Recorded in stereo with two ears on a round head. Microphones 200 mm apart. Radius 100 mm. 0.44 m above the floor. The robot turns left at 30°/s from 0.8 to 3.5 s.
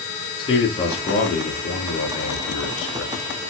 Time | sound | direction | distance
0.4 | a man speaking | 155° left | 4 m